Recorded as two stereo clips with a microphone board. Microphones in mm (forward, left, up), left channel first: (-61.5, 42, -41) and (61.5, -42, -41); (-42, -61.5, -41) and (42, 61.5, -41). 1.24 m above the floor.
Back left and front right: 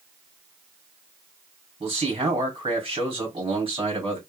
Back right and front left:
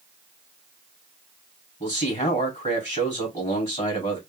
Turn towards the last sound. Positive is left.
turn(degrees=-85)